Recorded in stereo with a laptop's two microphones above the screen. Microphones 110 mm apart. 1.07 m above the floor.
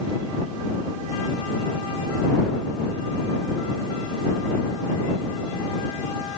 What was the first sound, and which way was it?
Only background noise.